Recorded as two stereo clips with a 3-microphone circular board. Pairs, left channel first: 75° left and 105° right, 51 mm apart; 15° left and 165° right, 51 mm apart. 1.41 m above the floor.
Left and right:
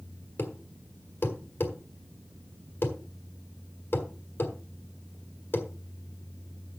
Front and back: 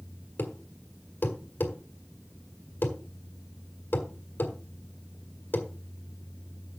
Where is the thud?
50° left, 1.7 m.